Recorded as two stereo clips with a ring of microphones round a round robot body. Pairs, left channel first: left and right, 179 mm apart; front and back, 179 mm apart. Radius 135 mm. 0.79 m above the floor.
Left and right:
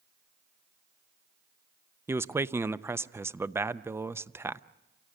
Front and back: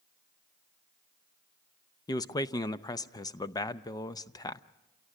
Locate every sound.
2.1 s a man speaking: 35° right, 0.6 m